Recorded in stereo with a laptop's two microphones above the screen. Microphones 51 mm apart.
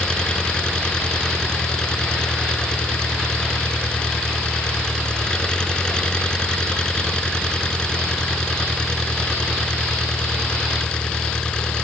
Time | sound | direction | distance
0.0 | an engine running | 20° left (ahead or behind) | ?